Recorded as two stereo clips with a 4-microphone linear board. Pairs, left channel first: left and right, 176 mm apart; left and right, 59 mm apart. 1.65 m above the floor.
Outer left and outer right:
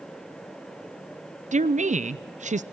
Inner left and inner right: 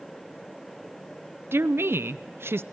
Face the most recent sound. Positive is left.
turn(degrees=-45)  # may be behind; listen again after turning